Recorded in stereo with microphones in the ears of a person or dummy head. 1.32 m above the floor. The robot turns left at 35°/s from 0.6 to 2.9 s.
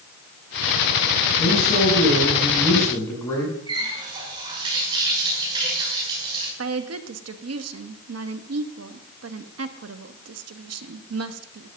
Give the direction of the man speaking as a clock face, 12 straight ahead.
10 o'clock.